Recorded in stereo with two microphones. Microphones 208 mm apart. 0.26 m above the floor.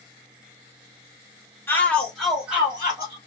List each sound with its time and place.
1.7 s a shout: 10° left (ahead or behind), 1.2 m; by 3.2 s 10° right (ahead or behind), 1.6 m